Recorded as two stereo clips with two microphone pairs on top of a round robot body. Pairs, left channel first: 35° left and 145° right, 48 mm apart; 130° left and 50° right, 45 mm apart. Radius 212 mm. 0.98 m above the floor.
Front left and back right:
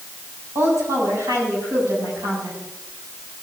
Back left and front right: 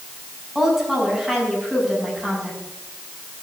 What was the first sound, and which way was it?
A woman speaking, 130° right.